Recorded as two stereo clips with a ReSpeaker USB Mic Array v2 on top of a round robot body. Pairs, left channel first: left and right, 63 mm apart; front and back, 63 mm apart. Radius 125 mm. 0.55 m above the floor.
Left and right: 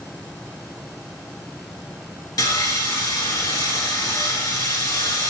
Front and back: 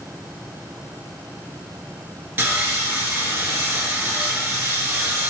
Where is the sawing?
120° left, 2.0 m.